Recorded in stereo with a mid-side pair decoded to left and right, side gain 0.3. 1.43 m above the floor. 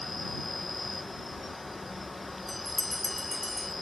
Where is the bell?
15° left.